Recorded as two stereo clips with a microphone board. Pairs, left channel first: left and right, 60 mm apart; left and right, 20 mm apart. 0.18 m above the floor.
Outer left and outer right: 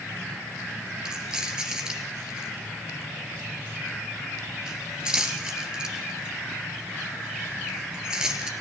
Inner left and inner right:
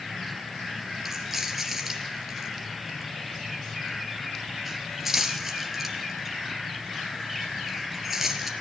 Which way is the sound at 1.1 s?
10° right (ahead or behind).